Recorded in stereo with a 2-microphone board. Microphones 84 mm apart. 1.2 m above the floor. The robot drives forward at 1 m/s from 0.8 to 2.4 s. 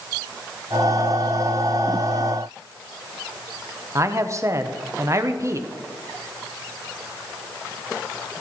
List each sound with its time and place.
4.0 s a man speaking: 35° right (ahead or behind), 0.7 m